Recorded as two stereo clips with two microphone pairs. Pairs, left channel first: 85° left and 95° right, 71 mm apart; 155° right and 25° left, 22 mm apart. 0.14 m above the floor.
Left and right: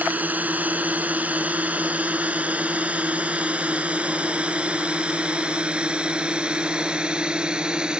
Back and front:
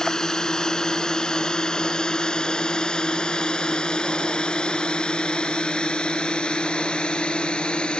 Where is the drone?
140° right; by 8.0 s 170° right.